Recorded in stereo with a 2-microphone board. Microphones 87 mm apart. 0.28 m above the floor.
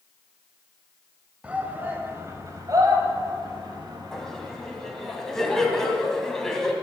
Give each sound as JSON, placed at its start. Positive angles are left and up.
{"t": 1.4, "sound": "a shout", "side_deg": -15, "distance_m": 1.6}
{"t": 4.1, "sound": "laughter", "side_deg": 5, "distance_m": 2.0}